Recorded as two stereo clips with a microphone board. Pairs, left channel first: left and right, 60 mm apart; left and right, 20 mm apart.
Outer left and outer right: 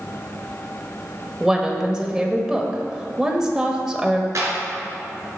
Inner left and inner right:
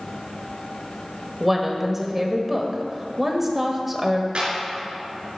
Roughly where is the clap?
Right.